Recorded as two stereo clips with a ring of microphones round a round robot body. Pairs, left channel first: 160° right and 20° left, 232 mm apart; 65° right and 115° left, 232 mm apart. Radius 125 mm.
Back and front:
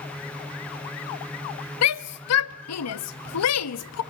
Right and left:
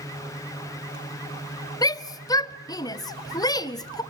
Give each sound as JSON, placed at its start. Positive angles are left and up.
{"t": 1.8, "sound": "a shout", "azimuth_deg": -140, "distance_m": 1.2}